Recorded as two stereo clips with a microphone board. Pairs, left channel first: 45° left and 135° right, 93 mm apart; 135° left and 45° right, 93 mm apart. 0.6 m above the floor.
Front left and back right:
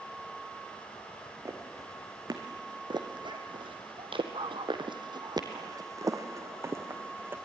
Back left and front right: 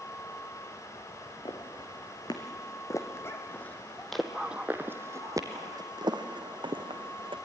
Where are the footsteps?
170° left, 3 m; by 7.4 s 65° right, 3 m.